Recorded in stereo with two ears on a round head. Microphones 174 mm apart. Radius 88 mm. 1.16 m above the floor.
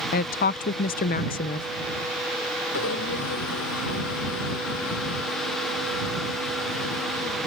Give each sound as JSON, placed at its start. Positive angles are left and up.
{"t": 0.1, "sound": "a woman speaking", "side_deg": 45}
{"t": 2.7, "sound": "a blender", "side_deg": 85}